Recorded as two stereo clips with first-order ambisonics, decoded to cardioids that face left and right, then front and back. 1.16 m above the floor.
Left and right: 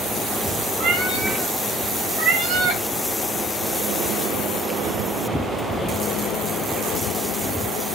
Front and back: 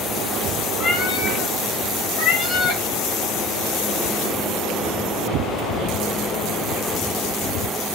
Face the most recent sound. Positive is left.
turn(degrees=-30)